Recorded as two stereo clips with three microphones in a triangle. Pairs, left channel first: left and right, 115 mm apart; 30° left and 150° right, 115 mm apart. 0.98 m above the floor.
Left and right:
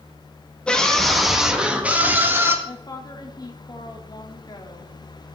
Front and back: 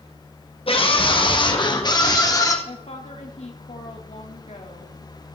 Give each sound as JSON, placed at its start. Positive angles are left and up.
{"t": 0.7, "sound": "a scream", "azimuth_deg": 10, "distance_m": 1.7}
{"t": 2.6, "sound": "a woman speaking", "azimuth_deg": 40, "distance_m": 1.9}